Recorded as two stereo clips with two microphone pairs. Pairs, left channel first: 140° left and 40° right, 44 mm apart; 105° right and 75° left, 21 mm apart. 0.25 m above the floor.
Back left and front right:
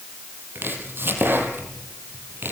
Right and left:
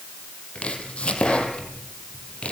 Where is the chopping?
75° right, 5 m.